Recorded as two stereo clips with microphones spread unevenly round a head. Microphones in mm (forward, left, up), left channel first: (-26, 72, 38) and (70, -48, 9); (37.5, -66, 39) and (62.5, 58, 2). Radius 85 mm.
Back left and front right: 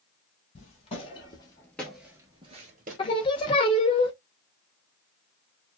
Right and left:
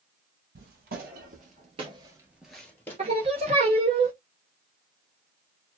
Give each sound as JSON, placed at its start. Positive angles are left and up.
{"t": 0.6, "sound": "footsteps", "azimuth_deg": 100, "distance_m": 1.8}
{"t": 3.0, "sound": "singing", "azimuth_deg": 130, "distance_m": 0.6}